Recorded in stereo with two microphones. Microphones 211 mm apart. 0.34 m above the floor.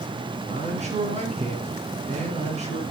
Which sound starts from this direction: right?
A man speaking, at 0.5 s.